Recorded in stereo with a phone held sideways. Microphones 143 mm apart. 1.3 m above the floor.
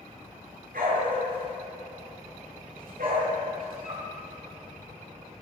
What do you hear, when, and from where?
0.7 s a dog barking: 85° right, 8.5 m; by 4.1 s 80° right, 12 m